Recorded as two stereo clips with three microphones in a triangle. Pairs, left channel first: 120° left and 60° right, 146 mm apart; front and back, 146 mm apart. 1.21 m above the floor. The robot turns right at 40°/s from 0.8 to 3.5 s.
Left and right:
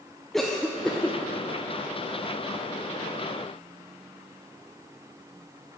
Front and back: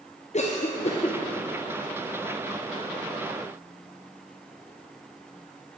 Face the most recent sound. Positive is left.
turn(degrees=140)